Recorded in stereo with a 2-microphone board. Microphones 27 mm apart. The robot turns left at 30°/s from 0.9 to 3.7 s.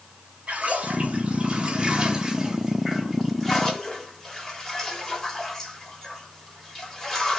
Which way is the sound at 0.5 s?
120° right.